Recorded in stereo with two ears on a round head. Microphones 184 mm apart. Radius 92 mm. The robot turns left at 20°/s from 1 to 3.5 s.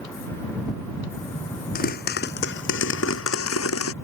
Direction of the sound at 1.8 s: 135° left.